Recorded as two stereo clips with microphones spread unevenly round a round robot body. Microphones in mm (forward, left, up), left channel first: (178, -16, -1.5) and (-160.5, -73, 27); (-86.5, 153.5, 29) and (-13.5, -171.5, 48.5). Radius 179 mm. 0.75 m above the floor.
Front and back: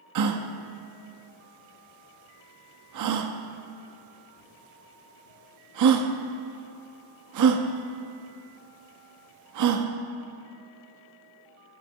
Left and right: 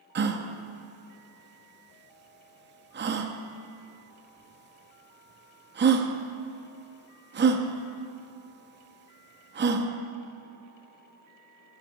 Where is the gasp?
135° right, 0.9 m.